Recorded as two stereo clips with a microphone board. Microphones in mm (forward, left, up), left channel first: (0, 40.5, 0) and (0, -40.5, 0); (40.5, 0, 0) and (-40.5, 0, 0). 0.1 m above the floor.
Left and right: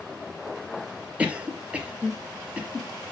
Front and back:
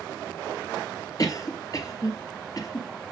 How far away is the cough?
About 2 m.